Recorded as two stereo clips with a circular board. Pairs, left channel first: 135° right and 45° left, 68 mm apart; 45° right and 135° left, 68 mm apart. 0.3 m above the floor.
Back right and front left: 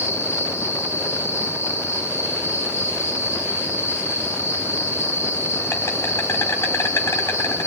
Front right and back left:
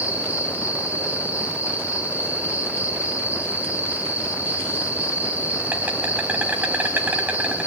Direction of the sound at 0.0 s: 170° right.